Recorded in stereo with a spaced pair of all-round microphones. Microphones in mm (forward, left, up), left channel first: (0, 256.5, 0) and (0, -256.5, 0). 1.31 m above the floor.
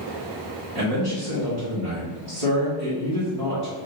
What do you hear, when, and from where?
0.8 s a man speaking: 80° right, 1.4 m